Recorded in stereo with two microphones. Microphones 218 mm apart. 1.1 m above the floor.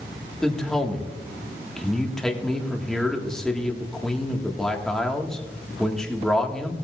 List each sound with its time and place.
0.4 s a man speaking: 5° left (ahead or behind), 1.4 m